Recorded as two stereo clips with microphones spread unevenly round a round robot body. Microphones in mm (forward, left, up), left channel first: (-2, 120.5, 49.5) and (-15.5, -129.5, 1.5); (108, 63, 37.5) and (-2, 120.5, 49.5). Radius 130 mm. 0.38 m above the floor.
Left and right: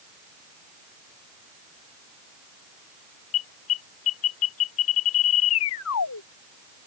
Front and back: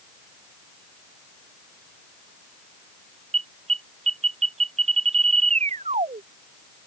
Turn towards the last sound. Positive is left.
turn(degrees=120)